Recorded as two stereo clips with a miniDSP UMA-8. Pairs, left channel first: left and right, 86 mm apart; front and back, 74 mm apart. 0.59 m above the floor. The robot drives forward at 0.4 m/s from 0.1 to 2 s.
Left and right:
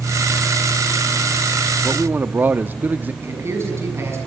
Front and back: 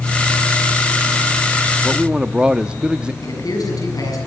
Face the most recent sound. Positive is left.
turn(degrees=-30)